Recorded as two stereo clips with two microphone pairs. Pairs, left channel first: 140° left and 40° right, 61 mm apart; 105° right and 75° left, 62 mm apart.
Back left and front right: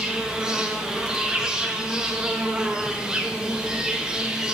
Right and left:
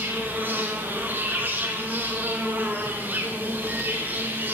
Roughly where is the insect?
Ahead left.